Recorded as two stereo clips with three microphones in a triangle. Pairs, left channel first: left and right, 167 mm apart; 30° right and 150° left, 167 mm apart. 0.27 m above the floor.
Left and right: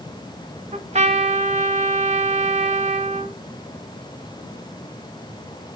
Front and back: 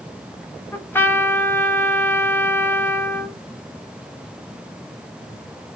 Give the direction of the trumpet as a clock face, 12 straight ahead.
3 o'clock.